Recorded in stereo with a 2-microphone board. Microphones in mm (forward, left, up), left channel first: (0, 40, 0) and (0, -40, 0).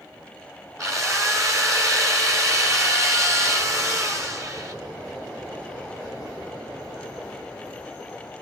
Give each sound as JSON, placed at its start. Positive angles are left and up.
{"t": 0.8, "sound": "a drill", "side_deg": -40, "distance_m": 3.0}